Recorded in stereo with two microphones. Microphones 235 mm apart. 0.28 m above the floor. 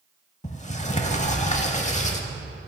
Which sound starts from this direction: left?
A sliding door, at 0.4 s.